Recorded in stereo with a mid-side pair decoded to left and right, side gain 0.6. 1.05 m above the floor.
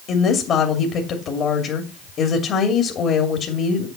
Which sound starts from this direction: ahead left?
A woman speaking, at 0.1 s.